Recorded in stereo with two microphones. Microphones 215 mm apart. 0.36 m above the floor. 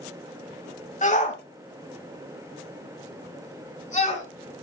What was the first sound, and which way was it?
A shout, 35° left (ahead or behind).